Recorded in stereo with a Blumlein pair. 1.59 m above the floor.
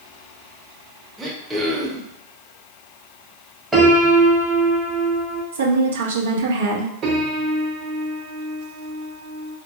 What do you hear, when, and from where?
1.2 s throat clearing: 10° right, 0.7 m
3.7 s a piano: 10° right, 0.9 m
5.5 s a woman speaking: 65° right, 0.6 m
7.0 s a piano: 30° right, 1.0 m